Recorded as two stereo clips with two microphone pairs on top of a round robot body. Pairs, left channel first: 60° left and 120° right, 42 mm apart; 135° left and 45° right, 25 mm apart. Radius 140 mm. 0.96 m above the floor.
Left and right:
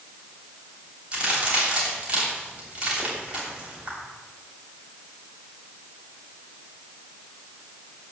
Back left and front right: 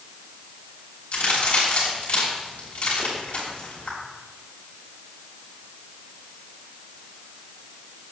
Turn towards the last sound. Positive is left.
turn(degrees=175)